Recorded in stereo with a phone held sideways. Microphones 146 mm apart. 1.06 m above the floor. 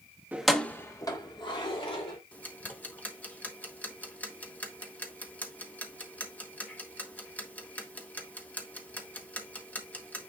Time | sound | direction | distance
0.3 | keys jangling | 10° right (ahead or behind) | 0.8 m
2.3 | ticking | 10° left (ahead or behind) | 1.5 m